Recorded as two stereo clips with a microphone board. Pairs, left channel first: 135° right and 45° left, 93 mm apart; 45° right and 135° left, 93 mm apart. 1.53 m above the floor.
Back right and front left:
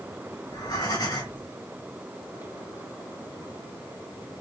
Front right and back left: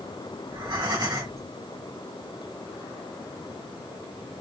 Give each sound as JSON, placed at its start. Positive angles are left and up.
{"t": 0.5, "sound": "breathing", "azimuth_deg": -175, "distance_m": 2.0}